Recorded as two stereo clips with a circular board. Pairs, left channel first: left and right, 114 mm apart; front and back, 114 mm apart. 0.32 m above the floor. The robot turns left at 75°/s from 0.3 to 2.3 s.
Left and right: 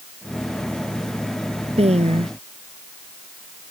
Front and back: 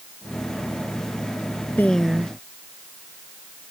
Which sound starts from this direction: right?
A woman speaking, at 1.8 s.